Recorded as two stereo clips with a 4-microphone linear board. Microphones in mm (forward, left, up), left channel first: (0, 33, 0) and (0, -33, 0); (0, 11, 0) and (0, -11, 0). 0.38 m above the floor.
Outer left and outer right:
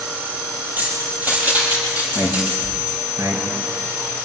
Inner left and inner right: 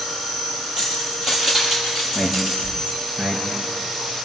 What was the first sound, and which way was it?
Keys jangling, 30° right (ahead or behind).